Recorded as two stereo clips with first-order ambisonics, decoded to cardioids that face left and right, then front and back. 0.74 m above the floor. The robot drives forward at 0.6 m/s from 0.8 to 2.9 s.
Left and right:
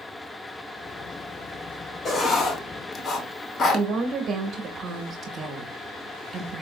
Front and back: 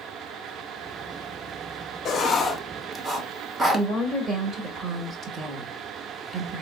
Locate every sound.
2.0 s writing: 35° left, 0.7 m; by 3.9 s 120° left, 0.6 m
3.7 s a woman speaking: 120° right, 0.9 m